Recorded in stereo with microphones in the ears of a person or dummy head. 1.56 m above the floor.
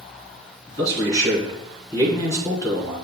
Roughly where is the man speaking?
Left.